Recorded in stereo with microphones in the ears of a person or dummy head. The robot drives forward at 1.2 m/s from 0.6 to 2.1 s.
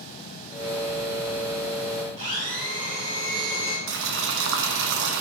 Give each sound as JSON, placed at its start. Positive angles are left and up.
{"t": 2.2, "sound": "a blender", "side_deg": -30, "distance_m": 2.0}
{"t": 3.9, "sound": "boiling", "side_deg": -65, "distance_m": 0.7}